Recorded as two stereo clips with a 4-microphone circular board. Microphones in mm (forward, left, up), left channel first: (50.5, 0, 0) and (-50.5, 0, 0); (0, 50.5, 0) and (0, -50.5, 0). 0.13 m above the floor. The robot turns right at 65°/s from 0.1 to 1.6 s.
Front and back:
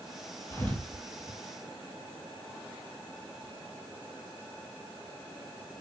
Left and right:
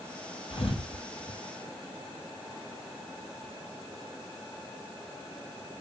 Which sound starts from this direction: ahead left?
A thud, at 0.5 s.